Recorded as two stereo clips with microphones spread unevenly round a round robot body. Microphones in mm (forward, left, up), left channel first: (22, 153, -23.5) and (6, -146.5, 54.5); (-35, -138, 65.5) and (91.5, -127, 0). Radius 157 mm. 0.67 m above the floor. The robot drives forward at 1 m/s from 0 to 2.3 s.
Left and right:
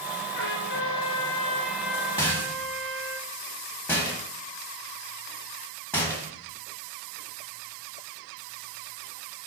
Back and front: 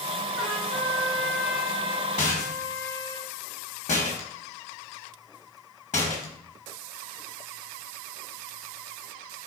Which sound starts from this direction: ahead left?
A trumpet, at 0.3 s.